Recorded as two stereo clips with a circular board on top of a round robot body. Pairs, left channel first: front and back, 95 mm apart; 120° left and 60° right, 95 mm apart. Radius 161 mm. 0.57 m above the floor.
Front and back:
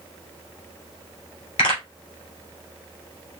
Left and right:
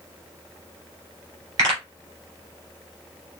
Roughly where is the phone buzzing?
I don't hear a phone buzzing.